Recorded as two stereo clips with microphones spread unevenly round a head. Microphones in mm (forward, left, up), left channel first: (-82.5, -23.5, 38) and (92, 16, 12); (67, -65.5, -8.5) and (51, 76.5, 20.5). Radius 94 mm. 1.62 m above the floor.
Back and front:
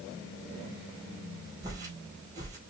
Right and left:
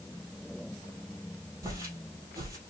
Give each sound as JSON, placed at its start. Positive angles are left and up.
{"t": 1.6, "sound": "footsteps", "azimuth_deg": 85, "distance_m": 1.8}